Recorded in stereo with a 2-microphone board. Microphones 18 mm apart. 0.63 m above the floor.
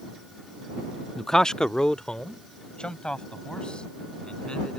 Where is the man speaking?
10° left (ahead or behind); by 4.8 s 55° left (ahead or behind).